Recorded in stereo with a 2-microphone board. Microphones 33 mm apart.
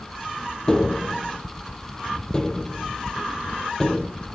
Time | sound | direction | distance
0.7 | tapping | 20° left (ahead or behind) | 1.2 m